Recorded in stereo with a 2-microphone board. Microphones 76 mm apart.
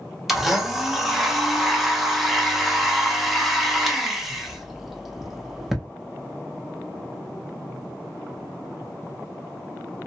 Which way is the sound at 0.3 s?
5° right (ahead or behind).